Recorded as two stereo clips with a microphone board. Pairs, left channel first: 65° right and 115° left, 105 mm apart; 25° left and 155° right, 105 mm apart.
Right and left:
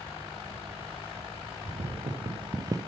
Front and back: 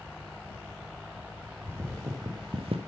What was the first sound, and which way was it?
Footsteps, 135° left.